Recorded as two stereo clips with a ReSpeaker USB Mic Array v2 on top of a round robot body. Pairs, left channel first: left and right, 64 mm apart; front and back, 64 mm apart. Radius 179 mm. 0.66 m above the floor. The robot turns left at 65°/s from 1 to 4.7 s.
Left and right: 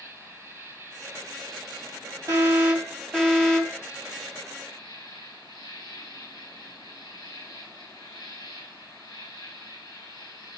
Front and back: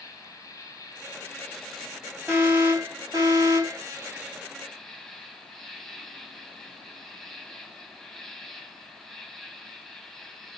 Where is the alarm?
130° right, 8 m; by 3.8 s 135° left, 8 m.